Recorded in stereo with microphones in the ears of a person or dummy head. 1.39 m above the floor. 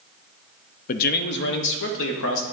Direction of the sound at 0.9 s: 45° left (ahead or behind).